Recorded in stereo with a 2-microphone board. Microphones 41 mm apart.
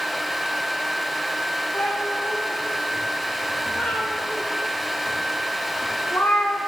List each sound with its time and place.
1.7 s a cat meowing: 85° left, 4.5 m